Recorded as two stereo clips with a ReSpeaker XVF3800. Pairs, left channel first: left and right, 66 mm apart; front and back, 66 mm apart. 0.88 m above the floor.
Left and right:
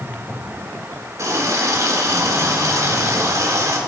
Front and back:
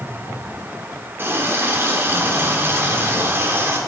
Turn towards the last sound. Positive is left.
turn(degrees=-125)